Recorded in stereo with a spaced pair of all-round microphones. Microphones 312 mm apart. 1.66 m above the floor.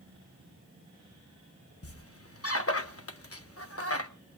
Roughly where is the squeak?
Left.